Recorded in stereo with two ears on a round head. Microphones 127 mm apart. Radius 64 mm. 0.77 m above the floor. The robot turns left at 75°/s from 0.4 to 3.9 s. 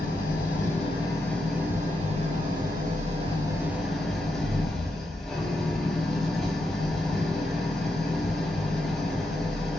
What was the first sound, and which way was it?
An engine running, 80° left.